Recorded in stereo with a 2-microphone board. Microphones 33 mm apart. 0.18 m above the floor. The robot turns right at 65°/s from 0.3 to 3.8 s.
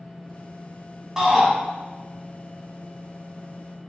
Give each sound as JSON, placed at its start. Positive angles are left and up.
{"t": 1.2, "sound": "a shout", "side_deg": -15, "distance_m": 1.5}